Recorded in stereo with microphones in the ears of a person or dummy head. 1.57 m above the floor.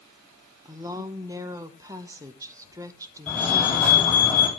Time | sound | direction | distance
0.7 | a woman speaking | 20° right (ahead or behind) | 1.0 m
3.3 | a fire alarm | 10° left (ahead or behind) | 6.5 m